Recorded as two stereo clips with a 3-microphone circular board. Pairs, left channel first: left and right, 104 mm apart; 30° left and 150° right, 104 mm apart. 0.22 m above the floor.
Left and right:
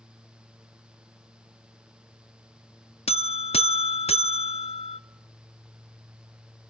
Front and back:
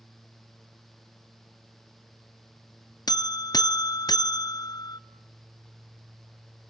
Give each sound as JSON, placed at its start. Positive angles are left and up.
{"t": 3.1, "sound": "a buzzer", "azimuth_deg": 80, "distance_m": 0.5}